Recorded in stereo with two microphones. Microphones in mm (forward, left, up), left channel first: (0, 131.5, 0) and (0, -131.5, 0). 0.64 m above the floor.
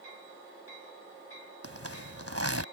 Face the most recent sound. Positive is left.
turn(degrees=-65)  # may be behind; listen again after turning